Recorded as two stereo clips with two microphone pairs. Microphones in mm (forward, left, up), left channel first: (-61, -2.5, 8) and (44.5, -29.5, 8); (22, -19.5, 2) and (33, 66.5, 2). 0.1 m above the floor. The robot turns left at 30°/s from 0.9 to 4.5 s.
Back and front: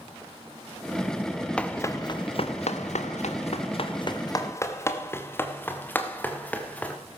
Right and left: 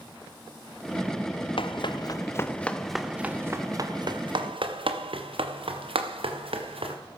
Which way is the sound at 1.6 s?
115° right.